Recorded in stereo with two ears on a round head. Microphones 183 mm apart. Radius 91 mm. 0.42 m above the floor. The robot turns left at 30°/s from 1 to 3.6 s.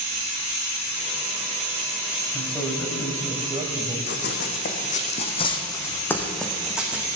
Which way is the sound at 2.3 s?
10° left.